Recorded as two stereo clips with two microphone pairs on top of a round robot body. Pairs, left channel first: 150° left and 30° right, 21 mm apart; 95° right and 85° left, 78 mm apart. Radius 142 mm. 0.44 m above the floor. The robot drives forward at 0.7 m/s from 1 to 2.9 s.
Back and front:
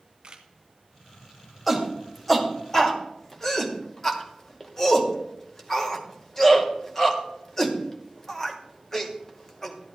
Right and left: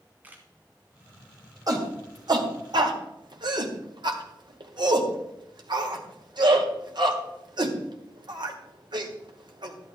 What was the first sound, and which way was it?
A camera shutter, 15° left.